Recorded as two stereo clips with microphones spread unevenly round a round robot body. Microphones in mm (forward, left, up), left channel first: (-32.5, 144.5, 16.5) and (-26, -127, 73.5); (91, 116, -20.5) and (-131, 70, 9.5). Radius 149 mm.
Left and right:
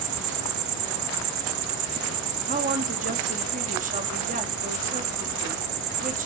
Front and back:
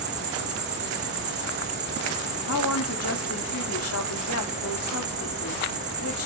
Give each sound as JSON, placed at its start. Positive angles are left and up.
{"t": 0.0, "sound": "an insect", "azimuth_deg": -100, "distance_m": 1.4}
{"t": 2.5, "sound": "a woman speaking", "azimuth_deg": -25, "distance_m": 2.0}